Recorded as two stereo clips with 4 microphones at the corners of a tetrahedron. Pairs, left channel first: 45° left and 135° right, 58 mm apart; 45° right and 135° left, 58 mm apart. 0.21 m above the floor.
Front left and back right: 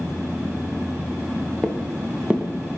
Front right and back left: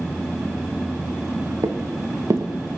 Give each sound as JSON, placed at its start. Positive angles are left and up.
{"t": 1.6, "sound": "footsteps", "azimuth_deg": 140, "distance_m": 0.9}